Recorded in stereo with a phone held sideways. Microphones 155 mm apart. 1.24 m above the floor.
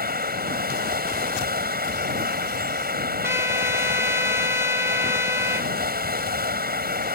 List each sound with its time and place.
0.0 s running water: 85° right
3.2 s a trumpet: 15° right (ahead or behind)